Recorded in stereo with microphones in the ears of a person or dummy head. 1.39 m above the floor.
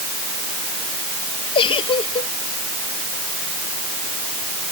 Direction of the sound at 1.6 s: 35° left (ahead or behind).